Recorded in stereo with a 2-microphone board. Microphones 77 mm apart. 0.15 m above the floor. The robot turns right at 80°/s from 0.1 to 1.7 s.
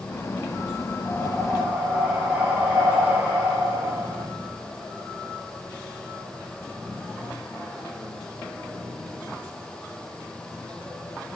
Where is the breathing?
145° left, 6.5 m; by 4.3 s 160° right, 6.5 m.